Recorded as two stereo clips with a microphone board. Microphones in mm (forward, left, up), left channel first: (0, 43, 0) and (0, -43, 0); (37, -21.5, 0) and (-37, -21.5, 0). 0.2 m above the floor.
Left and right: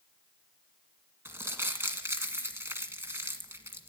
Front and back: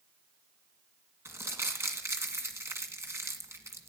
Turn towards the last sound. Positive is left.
turn(degrees=-145)